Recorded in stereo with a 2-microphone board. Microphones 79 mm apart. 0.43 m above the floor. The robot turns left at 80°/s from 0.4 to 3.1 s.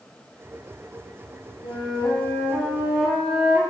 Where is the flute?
90° left, 5 m; by 3.6 s 25° right, 5 m.